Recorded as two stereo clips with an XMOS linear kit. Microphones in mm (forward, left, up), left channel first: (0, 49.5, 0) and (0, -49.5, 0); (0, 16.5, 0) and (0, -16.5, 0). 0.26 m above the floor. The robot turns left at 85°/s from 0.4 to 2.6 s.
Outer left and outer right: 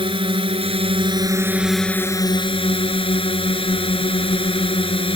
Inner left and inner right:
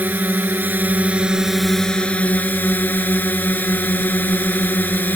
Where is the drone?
65° right; by 5.2 s 105° left.